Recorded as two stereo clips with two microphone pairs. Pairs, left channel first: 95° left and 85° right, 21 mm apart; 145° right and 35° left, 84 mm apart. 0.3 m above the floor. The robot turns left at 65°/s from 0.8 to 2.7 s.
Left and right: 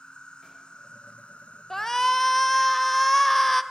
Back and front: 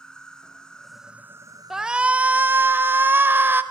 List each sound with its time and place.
0.0 s an insect: 130° left, 1.2 m; by 3.7 s 10° left, 1.2 m
1.7 s a shout: 110° left, 0.9 m; by 3.6 s 45° left, 0.9 m